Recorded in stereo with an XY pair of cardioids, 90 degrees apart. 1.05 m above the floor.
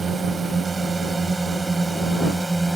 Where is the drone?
35° right; by 2.8 s 15° right.